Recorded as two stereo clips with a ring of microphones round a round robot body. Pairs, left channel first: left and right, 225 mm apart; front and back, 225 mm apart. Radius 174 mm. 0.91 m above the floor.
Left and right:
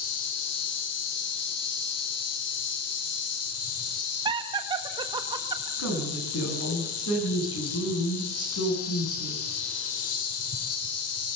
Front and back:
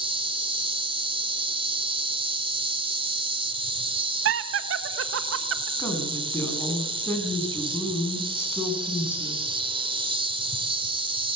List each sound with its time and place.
0.0 s an insect: 110° left, 2.5 m
4.2 s laughter: 160° right, 1.3 m
5.8 s a woman speaking: 80° left, 8.5 m